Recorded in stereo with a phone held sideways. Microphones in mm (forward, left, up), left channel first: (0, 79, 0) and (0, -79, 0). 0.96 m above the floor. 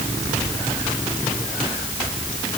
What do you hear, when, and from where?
Only background noise.